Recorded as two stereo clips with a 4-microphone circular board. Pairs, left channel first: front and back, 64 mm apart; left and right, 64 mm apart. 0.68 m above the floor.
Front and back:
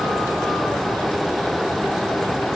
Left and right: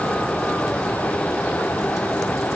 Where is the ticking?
No ticking in this recording.